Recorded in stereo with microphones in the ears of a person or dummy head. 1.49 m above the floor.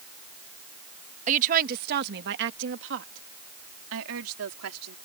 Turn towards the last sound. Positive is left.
turn(degrees=-90)